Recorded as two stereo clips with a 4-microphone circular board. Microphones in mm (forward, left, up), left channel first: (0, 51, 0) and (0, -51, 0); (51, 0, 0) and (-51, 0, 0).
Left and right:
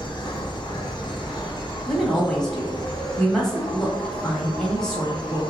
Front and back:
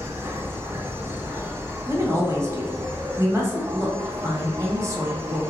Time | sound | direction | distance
0.0 | an insect | 120° left | 0.7 m
1.9 | a woman speaking | 170° left | 1.1 m